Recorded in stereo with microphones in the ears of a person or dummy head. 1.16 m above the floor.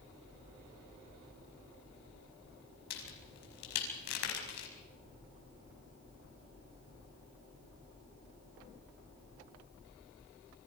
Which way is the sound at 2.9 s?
65° left (ahead or behind).